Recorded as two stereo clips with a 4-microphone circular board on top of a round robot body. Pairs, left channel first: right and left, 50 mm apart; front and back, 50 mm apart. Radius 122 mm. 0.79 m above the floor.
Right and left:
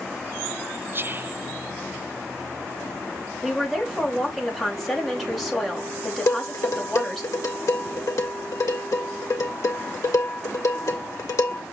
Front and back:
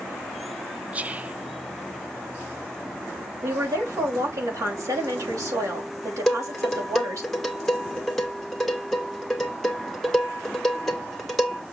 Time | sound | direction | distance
0.9 | whispering | 120° left | 0.5 m
3.4 | a woman speaking | 175° right | 3.5 m
6.3 | dishes clattering | 85° right | 1.9 m